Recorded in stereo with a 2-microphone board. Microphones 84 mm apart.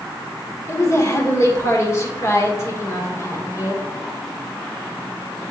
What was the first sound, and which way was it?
A woman speaking, 35° left (ahead or behind).